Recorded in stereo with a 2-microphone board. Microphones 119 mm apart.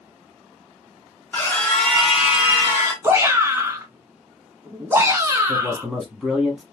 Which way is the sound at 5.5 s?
5° right (ahead or behind).